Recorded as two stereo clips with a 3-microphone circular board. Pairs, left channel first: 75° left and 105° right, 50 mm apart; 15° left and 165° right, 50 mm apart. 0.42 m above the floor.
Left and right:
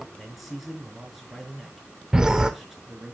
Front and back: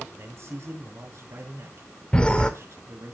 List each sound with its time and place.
0.1 s a man speaking: 165° left, 5.5 m
2.1 s a whoosh: 40° right, 1.2 m